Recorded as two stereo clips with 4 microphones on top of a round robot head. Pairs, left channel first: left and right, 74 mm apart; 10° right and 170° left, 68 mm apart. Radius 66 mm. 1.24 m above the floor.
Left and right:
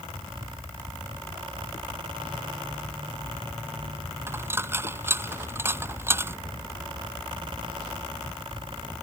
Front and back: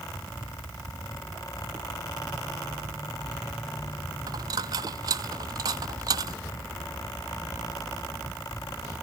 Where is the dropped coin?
150° right.